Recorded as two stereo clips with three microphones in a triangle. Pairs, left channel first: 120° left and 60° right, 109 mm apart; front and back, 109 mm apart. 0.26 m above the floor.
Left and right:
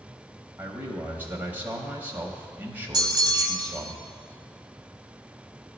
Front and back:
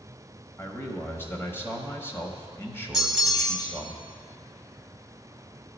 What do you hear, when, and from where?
0.6 s a man speaking: 20° right, 0.9 m
2.9 s a bell: 95° right, 0.7 m